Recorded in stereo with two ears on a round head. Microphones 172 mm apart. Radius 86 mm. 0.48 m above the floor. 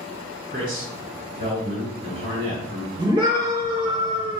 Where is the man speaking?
50° right (ahead or behind), 2.5 m.